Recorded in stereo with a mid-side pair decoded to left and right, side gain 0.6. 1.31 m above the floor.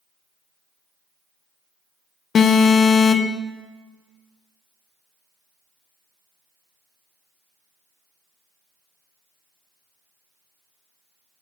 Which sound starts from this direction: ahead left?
An alarm, at 2.4 s.